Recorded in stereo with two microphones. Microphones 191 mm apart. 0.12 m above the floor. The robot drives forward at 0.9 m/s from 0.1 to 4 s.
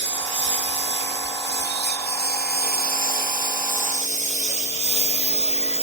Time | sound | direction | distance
0.0 | a lawn mower | 75° left (ahead or behind) | ?